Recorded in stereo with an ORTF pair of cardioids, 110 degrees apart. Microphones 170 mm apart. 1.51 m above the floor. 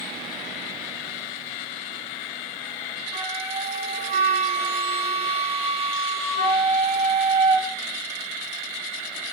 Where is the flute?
40° right, 1.6 m.